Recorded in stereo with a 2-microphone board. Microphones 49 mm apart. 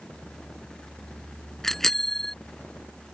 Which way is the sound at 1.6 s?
10° left (ahead or behind).